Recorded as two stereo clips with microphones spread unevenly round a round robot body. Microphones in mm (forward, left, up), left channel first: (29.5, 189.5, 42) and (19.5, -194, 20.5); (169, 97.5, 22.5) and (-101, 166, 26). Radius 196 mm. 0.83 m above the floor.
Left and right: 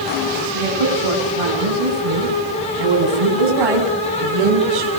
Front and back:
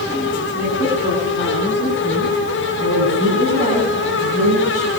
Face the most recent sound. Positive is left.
turn(degrees=-125)